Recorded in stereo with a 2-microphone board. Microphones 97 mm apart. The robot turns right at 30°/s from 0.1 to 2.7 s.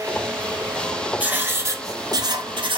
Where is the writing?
165° right, 0.7 m; by 2.8 s 120° right, 0.7 m.